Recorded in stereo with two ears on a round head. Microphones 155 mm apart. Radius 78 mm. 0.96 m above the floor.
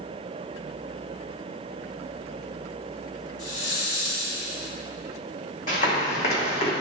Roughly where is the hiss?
Left.